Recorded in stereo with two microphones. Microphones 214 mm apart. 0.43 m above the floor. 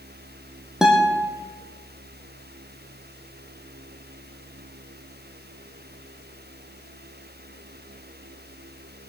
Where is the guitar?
Centre (ahead or behind), 2.5 m.